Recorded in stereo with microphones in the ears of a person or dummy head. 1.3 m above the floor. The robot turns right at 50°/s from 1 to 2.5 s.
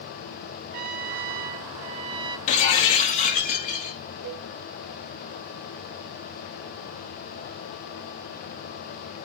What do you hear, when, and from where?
0.7 s a trumpet: 100° right, 0.6 m; by 2.4 s 30° right, 0.6 m
2.5 s breaking glass: 35° left (ahead or behind), 0.8 m
4.2 s a cowbell: 75° right (ahead or behind), 1.6 m